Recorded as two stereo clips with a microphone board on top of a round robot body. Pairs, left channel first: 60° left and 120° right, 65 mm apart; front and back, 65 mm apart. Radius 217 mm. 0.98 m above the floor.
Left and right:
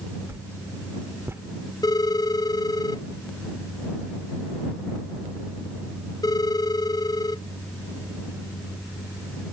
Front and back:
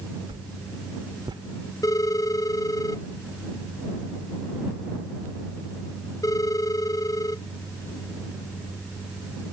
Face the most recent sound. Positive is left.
turn(degrees=35)